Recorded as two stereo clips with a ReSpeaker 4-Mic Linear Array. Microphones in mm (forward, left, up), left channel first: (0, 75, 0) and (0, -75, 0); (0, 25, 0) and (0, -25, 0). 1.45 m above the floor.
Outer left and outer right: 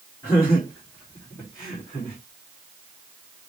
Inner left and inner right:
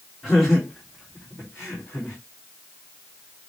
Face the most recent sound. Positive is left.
turn(degrees=25)  # may be behind; listen again after turning